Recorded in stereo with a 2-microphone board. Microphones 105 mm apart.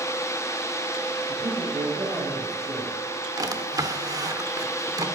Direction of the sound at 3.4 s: 35° right (ahead or behind).